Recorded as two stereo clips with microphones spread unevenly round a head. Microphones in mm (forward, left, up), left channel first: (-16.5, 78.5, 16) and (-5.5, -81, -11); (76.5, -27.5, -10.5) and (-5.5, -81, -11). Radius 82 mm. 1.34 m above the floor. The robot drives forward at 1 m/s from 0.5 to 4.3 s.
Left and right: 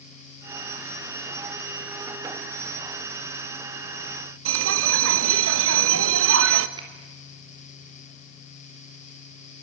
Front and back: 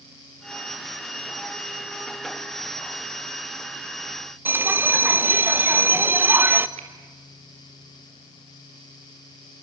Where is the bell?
75° right, 1.1 m.